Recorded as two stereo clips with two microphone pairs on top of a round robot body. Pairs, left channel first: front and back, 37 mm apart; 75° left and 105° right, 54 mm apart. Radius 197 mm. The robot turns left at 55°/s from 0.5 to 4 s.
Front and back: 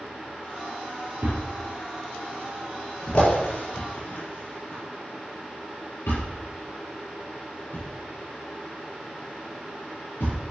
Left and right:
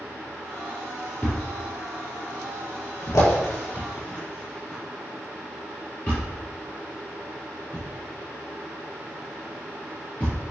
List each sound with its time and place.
1.2 s a thud: 160° left, 4.5 m; by 10.4 s 10° left, 4.5 m